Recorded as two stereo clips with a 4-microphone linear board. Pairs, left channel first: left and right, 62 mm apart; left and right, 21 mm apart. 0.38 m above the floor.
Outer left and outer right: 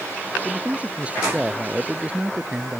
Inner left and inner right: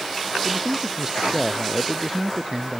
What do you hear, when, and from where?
0.5 s a man speaking: 20° right (ahead or behind)